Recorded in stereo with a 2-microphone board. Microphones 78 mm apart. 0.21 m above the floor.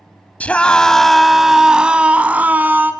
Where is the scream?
20° left (ahead or behind), 1.0 m; by 2.9 s 25° right (ahead or behind), 1.5 m.